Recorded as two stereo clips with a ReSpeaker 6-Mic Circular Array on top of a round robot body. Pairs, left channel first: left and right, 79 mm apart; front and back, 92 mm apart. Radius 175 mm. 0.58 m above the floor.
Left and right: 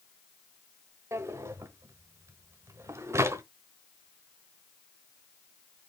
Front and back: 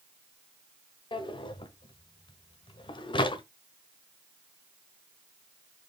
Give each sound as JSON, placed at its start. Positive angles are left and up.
{"t": 1.1, "sound": "a drawer", "azimuth_deg": -35, "distance_m": 1.1}